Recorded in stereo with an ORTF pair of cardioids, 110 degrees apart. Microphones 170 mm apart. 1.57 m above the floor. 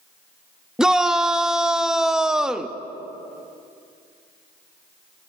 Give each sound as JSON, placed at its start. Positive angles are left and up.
{"t": 0.8, "sound": "a shout", "azimuth_deg": -5, "distance_m": 0.6}